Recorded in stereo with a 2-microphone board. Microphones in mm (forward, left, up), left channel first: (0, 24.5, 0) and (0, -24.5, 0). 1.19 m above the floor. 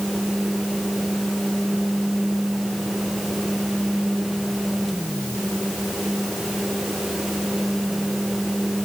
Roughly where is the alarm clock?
I don't hear an alarm clock.